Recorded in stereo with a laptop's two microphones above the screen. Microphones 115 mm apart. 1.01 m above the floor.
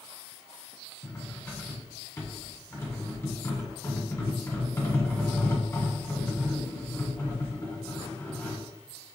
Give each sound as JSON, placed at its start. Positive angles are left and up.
{"t": 1.0, "sound": "cutlery clinking", "side_deg": 25, "distance_m": 1.5}